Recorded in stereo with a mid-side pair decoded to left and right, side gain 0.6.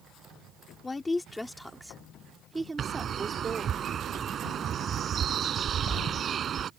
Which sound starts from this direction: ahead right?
A bird, at 2.8 s.